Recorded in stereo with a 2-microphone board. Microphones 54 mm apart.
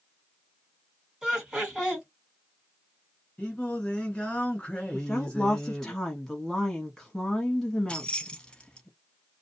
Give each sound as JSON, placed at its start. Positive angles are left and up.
{"t": 1.2, "sound": "laughter", "side_deg": -10, "distance_m": 1.7}
{"t": 3.4, "sound": "singing", "side_deg": 20, "distance_m": 1.2}
{"t": 4.9, "sound": "a woman speaking", "side_deg": 10, "distance_m": 1.0}
{"t": 7.9, "sound": "keys jangling", "side_deg": 20, "distance_m": 0.7}